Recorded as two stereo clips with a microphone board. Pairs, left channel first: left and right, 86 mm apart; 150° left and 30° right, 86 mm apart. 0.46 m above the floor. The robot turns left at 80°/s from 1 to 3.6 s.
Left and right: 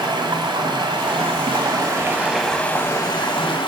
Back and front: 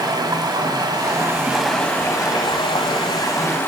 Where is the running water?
65° right, 1.2 m; by 3.7 s 85° left, 1.2 m.